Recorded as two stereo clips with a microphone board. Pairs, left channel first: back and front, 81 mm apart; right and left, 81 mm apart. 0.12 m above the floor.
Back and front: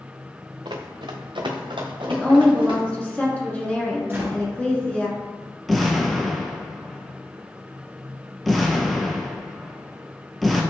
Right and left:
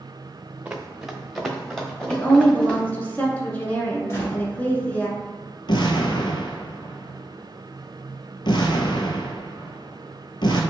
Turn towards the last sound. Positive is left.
turn(degrees=-90)